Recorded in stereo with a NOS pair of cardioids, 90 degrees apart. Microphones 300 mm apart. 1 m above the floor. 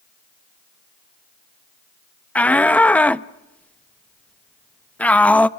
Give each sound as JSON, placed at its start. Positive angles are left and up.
{"t": 2.4, "sound": "a shout", "azimuth_deg": 5, "distance_m": 0.7}